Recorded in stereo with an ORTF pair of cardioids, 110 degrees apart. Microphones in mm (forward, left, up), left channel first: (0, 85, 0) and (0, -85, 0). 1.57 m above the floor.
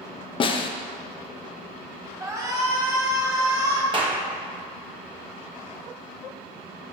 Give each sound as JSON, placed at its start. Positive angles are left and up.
{"t": 0.4, "sound": "a snare drum", "azimuth_deg": 35, "distance_m": 0.8}
{"t": 2.2, "sound": "a shout", "azimuth_deg": -20, "distance_m": 2.5}
{"t": 3.9, "sound": "a clap", "azimuth_deg": -30, "distance_m": 1.4}